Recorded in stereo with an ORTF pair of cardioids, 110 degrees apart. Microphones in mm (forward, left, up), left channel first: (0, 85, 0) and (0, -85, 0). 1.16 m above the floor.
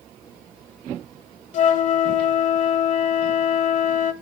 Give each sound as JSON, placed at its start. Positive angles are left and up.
{"t": 1.5, "sound": "a flute", "azimuth_deg": 50, "distance_m": 0.7}